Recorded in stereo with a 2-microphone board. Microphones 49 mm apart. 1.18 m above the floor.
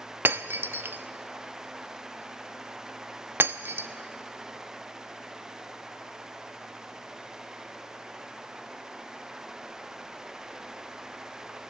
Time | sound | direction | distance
0.2 | breaking glass | 50° right (ahead or behind) | 0.7 m